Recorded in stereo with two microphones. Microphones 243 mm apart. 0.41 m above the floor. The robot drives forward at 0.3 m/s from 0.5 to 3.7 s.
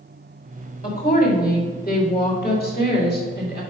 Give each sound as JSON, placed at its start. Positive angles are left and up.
{"t": 0.8, "sound": "a woman speaking", "side_deg": 35, "distance_m": 1.9}